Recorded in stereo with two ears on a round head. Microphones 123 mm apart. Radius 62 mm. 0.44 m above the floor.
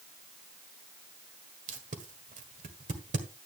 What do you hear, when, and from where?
1.7 s tape being pulled: 55° right (ahead or behind), 1.6 m